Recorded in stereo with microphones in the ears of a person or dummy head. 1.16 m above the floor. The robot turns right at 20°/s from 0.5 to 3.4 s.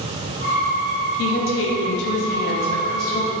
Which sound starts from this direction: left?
A woman speaking, at 1.2 s.